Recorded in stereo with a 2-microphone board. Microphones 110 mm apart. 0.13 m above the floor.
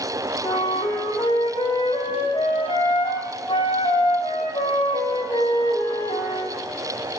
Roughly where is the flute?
Left.